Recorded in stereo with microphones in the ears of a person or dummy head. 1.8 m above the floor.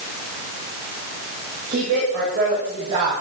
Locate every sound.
1.7 s a woman speaking: 50° right (ahead or behind), 8 m; by 3.1 s 45° right (ahead or behind), 8.5 m